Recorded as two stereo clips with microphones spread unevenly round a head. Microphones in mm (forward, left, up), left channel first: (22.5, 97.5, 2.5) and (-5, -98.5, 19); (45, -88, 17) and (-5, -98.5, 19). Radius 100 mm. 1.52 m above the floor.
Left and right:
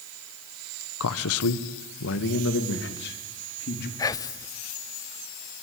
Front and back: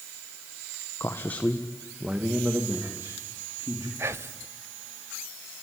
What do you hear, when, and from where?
1.0 s a man speaking: 75° left, 1.3 m; by 3.9 s 125° left, 4 m
4.0 s whispering: 155° left, 0.6 m